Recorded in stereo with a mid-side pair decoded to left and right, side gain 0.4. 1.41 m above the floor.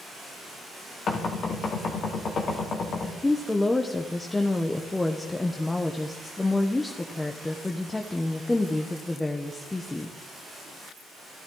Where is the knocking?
60° left, 2 m.